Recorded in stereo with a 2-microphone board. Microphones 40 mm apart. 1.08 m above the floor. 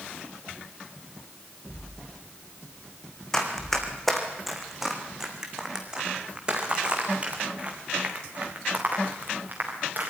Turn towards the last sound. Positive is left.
turn(degrees=-45)  # may be behind; listen again after turning